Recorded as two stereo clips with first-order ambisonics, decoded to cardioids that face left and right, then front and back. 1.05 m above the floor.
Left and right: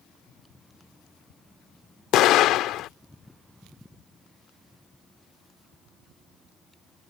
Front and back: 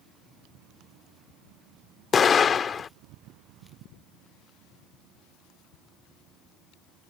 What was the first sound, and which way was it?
An explosion, 65° left.